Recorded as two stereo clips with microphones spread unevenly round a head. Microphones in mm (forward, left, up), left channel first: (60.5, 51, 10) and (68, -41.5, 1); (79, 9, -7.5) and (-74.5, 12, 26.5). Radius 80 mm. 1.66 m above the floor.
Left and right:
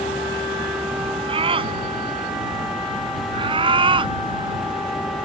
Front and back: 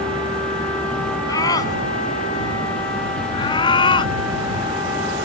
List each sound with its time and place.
1.3 s a scream: 70° right; by 5.3 s 60° right